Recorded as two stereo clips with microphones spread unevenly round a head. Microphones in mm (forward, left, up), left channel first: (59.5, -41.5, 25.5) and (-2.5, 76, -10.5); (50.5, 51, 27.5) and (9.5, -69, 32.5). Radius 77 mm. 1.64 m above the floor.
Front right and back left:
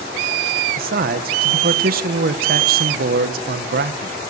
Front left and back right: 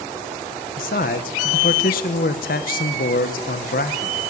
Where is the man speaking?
100° left, 1.4 m.